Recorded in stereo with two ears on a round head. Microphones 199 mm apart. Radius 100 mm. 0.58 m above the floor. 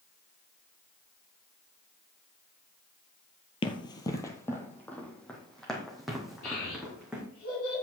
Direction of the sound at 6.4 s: 75° left (ahead or behind).